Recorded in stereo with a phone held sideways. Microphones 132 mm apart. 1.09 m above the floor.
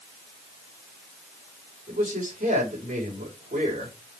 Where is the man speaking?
75° right (ahead or behind), 4.5 m.